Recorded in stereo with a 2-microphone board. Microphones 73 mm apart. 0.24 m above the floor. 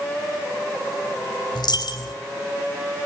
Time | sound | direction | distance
1.6 | a dropped coin | 60° left (ahead or behind) | 3 m